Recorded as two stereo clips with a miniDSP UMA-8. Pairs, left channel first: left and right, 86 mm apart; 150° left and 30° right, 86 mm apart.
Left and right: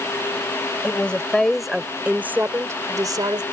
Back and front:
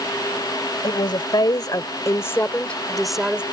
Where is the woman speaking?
165° left; by 3.4 s 105° right.